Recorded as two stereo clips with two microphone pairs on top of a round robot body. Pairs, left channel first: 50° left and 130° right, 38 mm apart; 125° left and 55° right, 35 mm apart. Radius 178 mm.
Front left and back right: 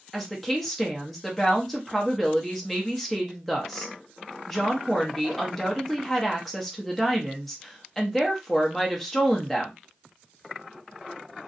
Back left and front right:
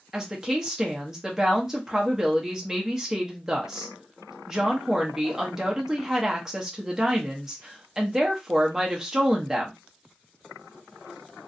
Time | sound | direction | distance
0.1 | a woman speaking | 30° right | 1.0 m